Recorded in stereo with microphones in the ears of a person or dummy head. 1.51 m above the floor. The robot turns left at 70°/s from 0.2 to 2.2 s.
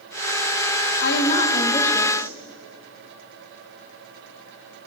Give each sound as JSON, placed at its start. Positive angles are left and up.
{"t": 1.0, "sound": "a woman speaking", "azimuth_deg": 75, "distance_m": 1.2}